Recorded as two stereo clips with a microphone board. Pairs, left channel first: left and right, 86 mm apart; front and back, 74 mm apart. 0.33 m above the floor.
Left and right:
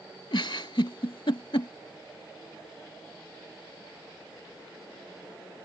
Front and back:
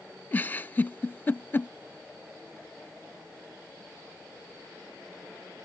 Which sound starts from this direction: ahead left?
A giggle, at 0.3 s.